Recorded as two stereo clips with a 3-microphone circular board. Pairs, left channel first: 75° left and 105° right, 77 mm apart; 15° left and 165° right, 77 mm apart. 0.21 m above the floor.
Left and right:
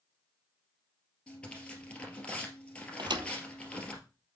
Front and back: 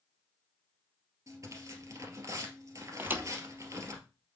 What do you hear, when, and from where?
1.3 s tearing paper: 150° left, 2 m
3.0 s a thud: 105° right, 0.8 m